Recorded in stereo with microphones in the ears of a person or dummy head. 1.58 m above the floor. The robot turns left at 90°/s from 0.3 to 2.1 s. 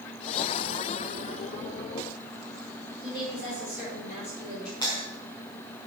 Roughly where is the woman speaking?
Left.